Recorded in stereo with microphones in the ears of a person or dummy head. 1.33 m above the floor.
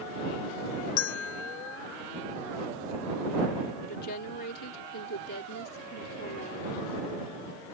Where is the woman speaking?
60° left (ahead or behind).